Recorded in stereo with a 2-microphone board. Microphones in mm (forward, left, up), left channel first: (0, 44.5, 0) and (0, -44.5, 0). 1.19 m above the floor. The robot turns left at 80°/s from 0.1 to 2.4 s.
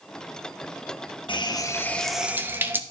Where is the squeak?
I don't hear a squeak.